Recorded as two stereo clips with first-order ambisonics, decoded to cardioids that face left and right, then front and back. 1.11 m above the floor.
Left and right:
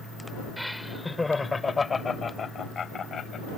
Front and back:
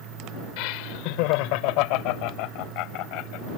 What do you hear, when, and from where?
0.6 s laughter: straight ahead; by 3.5 s 25° left